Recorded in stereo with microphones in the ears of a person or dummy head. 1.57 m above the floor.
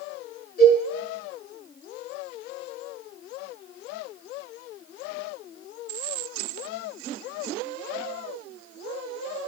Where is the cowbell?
50° left (ahead or behind), 9 m.